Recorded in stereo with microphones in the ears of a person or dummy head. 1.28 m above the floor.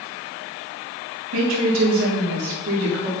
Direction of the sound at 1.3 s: 70° right (ahead or behind).